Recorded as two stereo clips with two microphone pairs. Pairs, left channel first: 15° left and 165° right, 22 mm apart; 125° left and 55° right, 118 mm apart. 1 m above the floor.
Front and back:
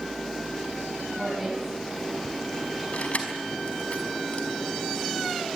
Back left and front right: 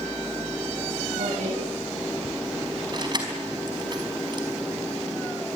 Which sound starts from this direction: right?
A woman speaking, at 1.2 s.